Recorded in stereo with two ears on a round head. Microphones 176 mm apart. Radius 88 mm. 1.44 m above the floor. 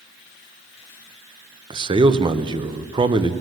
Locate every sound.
1.7 s a man speaking: 25° right (ahead or behind), 0.6 m